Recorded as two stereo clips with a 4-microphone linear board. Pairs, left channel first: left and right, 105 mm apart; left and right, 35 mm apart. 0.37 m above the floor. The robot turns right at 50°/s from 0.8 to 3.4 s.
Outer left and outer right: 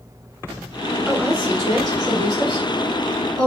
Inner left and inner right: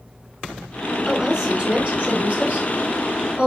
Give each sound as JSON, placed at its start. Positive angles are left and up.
{"t": 1.1, "sound": "a woman speaking", "azimuth_deg": -175, "distance_m": 1.4}